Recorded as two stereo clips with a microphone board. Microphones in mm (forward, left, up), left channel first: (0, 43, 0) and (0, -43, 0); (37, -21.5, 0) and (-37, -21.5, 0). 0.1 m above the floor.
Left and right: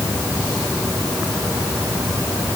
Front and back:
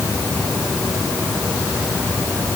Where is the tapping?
I don't hear tapping.